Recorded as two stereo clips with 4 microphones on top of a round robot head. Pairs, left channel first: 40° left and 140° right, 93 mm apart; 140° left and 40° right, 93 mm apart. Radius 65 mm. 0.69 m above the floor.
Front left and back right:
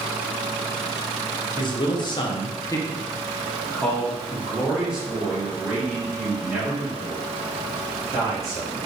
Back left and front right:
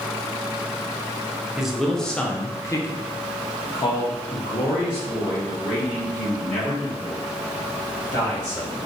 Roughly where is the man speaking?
Ahead left.